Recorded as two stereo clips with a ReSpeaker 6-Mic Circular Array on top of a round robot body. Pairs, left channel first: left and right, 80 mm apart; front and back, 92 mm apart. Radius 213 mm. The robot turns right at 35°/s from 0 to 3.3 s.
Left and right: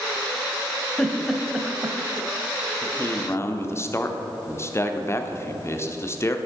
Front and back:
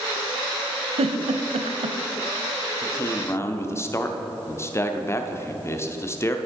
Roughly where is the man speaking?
Ahead left.